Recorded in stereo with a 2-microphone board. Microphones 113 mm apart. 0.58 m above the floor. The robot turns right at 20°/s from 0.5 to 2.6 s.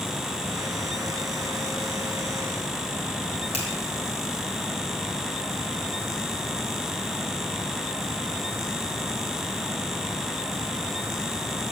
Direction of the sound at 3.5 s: 70° left (ahead or behind).